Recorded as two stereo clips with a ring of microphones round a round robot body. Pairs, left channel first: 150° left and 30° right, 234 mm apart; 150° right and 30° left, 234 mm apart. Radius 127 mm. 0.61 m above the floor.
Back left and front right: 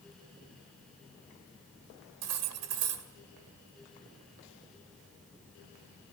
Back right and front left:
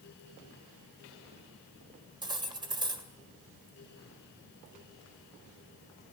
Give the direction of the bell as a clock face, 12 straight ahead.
No bell in this recording.